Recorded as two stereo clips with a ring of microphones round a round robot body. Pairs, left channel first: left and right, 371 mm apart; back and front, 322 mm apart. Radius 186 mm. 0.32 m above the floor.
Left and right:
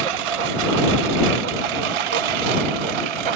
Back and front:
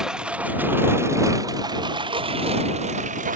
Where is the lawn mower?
90° right; by 3.4 s 70° right.